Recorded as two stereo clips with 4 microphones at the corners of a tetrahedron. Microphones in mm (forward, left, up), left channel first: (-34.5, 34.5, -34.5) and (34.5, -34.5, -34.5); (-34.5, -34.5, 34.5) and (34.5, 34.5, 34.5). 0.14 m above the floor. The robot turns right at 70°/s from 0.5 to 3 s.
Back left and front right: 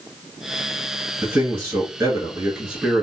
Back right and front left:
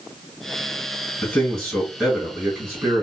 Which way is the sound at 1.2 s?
85° right.